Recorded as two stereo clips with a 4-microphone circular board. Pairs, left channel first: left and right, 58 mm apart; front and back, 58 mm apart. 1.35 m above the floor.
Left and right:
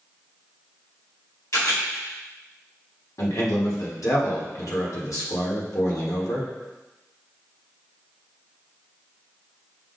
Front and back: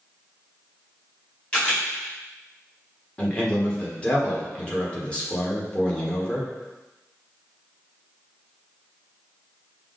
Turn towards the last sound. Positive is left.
turn(degrees=70)